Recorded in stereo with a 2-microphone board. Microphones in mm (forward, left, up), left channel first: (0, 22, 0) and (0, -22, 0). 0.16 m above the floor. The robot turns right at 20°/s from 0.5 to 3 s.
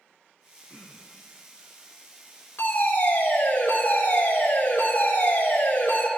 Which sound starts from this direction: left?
A fire alarm, at 2.6 s.